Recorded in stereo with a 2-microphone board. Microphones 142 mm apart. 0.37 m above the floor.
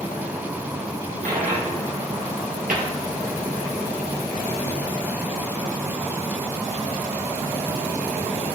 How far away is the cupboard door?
About 2.5 m.